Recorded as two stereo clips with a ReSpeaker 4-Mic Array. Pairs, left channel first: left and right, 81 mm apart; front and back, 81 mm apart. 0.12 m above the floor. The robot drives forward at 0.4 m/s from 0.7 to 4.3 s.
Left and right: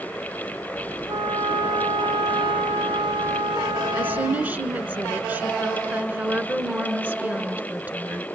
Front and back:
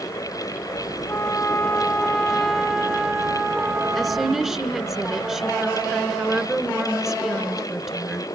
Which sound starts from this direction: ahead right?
A trumpet, at 1.1 s.